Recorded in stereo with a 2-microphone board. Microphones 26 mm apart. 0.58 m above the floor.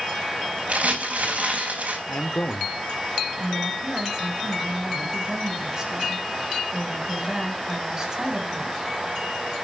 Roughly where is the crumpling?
Right.